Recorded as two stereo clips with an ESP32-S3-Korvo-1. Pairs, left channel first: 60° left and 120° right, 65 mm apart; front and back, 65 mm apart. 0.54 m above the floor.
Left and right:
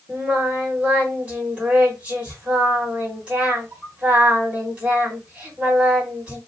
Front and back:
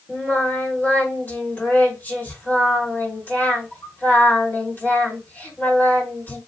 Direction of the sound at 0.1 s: 50° right.